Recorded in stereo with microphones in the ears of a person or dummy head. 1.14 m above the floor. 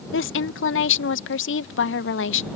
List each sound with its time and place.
0.1 s a woman speaking: 65° left (ahead or behind)